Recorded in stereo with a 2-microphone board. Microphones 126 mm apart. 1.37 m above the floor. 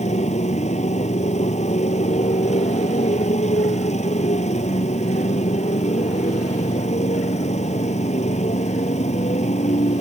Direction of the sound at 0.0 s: 65° left (ahead or behind).